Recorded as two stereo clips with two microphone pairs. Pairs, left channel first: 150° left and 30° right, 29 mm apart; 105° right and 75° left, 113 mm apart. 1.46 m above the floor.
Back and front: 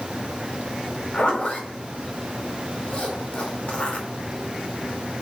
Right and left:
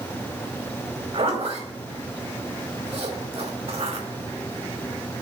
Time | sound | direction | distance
1.1 | a zipper | 100° left | 4.5 m